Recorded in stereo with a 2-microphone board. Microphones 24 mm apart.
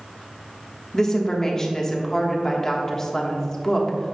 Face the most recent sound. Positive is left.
turn(degrees=25)  # may be behind; listen again after turning